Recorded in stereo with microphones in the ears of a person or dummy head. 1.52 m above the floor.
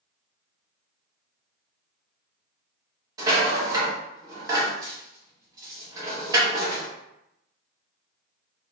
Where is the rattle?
25° right (ahead or behind), 1.6 m.